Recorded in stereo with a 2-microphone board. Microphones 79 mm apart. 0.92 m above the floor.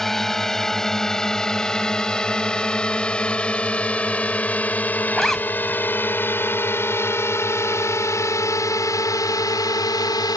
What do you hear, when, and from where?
0.0 s a drone: 5° left (ahead or behind); by 10.4 s 55° left (ahead or behind)
5.1 s a zipper: 5° left (ahead or behind)